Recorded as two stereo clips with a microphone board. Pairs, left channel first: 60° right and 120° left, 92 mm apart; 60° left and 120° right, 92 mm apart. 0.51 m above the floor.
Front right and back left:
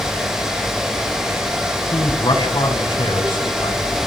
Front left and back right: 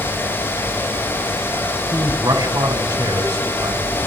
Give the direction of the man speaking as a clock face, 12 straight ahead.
3 o'clock.